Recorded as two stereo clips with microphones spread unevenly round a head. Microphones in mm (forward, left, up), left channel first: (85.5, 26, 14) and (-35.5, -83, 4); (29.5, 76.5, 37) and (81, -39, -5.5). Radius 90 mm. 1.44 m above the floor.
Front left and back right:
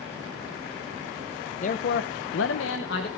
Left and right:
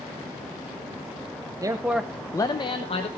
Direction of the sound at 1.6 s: Straight ahead.